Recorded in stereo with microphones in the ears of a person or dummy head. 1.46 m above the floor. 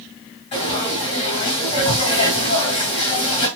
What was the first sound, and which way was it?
Frying, 30° left (ahead or behind).